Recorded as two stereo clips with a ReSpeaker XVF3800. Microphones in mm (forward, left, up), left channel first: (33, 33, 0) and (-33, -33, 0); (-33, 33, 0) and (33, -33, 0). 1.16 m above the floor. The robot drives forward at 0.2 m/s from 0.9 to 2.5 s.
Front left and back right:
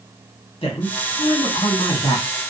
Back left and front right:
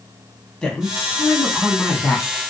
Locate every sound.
0.6 s a woman speaking: 55° left, 1.0 m; by 2.3 s 70° left, 0.8 m